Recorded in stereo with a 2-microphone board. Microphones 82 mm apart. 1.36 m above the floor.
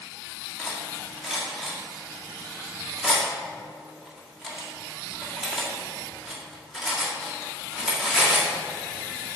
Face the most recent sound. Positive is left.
turn(degrees=0)  # may be behind; listen again after turning